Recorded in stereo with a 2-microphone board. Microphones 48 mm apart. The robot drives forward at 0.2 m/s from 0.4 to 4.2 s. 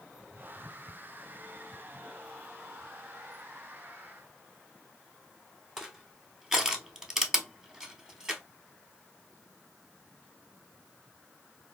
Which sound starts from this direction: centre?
Crushing, at 5.8 s.